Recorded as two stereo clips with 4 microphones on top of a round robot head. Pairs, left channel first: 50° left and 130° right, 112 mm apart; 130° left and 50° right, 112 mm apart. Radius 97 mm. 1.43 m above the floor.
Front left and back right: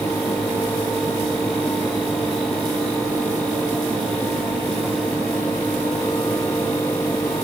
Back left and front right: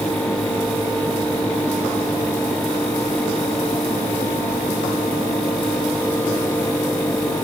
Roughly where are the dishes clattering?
I don't hear dishes clattering.